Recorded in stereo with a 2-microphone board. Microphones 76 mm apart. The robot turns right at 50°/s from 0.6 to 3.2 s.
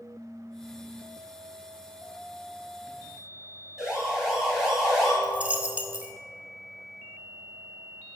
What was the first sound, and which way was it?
A siren, 5° right (ahead or behind).